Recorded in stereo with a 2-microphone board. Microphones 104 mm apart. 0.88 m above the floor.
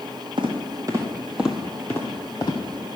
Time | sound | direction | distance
0.4 | footsteps | 50° right (ahead or behind) | 2 m